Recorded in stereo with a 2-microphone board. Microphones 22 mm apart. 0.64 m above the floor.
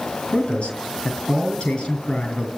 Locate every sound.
0.3 s a man speaking: 60° left (ahead or behind), 5 m